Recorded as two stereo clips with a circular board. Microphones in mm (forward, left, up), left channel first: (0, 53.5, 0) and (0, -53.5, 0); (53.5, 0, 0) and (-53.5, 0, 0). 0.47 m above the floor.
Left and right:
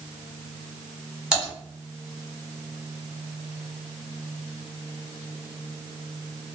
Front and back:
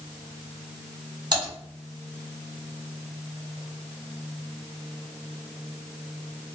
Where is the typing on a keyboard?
170° right, 1.8 m.